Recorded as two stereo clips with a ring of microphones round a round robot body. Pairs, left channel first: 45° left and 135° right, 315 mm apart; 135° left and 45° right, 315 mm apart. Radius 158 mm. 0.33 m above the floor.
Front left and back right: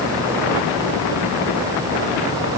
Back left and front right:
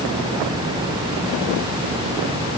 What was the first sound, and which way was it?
Only background noise.